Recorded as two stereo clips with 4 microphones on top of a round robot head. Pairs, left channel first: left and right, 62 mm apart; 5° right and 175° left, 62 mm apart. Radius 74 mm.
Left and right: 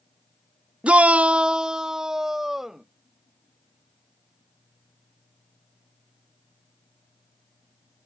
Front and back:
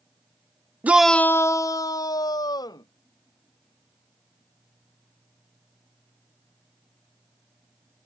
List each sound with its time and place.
0.8 s a shout: 150° right; by 2.9 s 5° right